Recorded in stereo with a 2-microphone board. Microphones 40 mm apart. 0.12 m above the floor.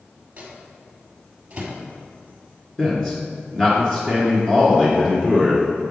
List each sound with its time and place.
0.4 s a microwave: 30° right (ahead or behind), 1.7 m
2.8 s a man speaking: 15° left (ahead or behind), 1.2 m